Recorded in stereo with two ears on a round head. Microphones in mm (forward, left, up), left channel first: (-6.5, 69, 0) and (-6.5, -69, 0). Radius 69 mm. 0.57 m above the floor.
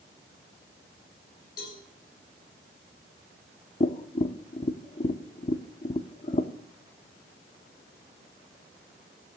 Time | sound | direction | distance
1.6 | a cowbell | 65° left (ahead or behind) | 6.5 m
3.8 | tapping | 35° left (ahead or behind) | 0.7 m